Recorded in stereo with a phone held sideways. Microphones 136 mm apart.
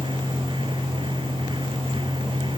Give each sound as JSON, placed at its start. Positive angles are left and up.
{"t": 0.0, "sound": "a fan", "side_deg": -40}